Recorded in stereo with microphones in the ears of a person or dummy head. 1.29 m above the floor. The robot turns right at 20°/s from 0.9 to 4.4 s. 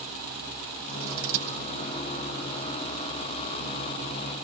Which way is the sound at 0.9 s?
85° right.